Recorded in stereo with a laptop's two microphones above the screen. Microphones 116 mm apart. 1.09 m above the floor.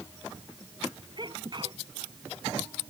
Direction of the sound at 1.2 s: 40° right (ahead or behind).